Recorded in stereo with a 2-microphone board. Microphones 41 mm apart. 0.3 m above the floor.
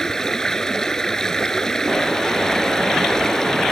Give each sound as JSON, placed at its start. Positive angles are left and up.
{"t": 0.0, "sound": "running water", "side_deg": 15}